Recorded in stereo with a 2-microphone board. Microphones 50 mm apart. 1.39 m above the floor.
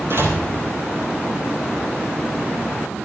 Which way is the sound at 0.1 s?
50° right (ahead or behind).